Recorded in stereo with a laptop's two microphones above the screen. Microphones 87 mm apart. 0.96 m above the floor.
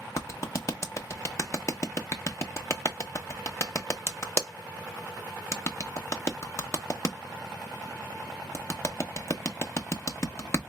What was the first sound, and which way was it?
A clap, 40° left (ahead or behind).